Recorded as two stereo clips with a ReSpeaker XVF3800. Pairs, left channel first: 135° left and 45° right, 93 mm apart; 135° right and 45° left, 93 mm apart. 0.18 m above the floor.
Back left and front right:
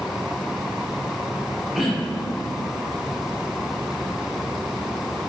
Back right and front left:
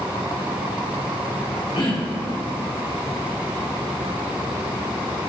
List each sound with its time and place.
1.8 s throat clearing: 130° right, 3.5 m